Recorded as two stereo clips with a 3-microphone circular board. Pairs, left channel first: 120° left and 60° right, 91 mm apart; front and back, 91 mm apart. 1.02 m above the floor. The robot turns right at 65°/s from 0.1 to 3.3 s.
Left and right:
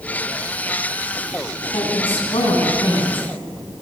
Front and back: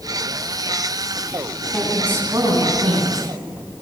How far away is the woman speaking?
About 9.5 m.